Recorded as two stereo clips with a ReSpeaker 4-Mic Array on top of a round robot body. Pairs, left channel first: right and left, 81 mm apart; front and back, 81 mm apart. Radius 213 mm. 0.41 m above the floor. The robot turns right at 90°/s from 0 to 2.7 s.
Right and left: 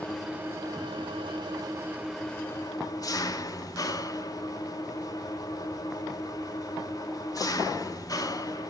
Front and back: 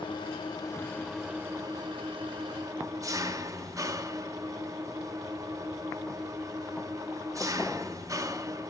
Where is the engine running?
15° right, 2.0 m; by 8.7 s 130° right, 2.0 m.